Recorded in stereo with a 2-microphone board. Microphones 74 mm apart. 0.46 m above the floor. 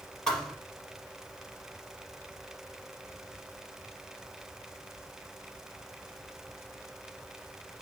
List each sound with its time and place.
0.3 s a thud: 10° left (ahead or behind), 3 m